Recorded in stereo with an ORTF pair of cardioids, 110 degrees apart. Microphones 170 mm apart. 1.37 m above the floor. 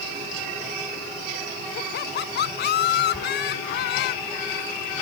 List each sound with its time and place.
1.8 s laughter: 65° left
3.1 s a squeak: 10° left